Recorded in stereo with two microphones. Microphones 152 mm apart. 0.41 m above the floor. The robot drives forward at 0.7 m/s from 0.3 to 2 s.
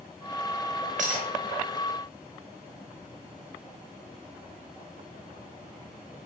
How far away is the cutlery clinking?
About 0.9 m.